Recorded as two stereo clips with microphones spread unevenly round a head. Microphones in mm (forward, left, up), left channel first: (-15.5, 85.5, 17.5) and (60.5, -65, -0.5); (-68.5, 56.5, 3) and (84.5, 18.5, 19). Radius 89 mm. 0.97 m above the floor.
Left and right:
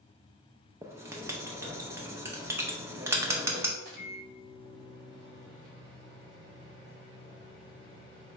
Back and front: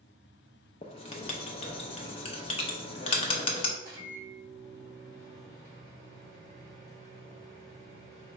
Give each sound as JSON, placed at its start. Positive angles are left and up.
{"t": 0.8, "sound": "writing", "azimuth_deg": -135, "distance_m": 0.5}
{"t": 3.8, "sound": "a microwave", "azimuth_deg": -95, "distance_m": 1.5}